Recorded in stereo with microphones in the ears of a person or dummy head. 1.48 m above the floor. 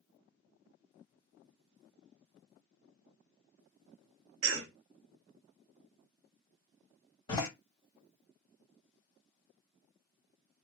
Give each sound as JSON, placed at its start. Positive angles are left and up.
{"t": 4.4, "sound": "a cough", "side_deg": -75, "distance_m": 1.0}
{"t": 7.3, "sound": "a door slam", "side_deg": 25, "distance_m": 2.0}